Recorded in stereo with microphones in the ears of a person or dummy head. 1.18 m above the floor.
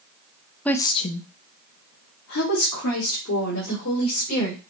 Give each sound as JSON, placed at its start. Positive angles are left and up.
{"t": 0.7, "sound": "a woman speaking", "side_deg": 5, "distance_m": 0.6}